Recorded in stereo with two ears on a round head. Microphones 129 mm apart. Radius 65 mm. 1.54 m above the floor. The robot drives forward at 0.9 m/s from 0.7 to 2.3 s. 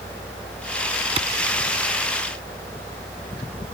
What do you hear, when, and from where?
1.2 s a clap: 40° right (ahead or behind)